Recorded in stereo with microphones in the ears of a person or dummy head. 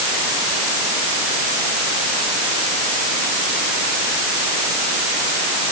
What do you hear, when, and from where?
Only background noise.